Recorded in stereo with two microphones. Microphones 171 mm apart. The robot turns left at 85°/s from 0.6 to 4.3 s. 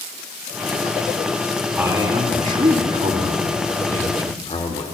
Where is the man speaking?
10° right, 1.6 m; by 4.8 s 130° left, 1.6 m.